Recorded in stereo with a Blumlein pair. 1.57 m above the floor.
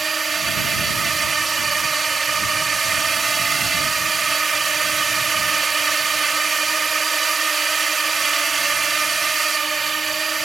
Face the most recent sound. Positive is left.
turn(degrees=-15)